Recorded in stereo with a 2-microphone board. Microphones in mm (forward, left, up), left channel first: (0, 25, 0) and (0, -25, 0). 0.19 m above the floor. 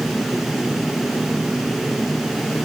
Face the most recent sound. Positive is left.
No sound to turn to.